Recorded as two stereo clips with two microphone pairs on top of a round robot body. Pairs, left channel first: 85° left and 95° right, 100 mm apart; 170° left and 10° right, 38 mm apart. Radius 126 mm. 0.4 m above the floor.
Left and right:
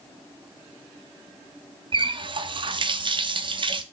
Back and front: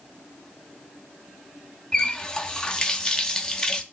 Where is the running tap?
120° right, 1.0 m.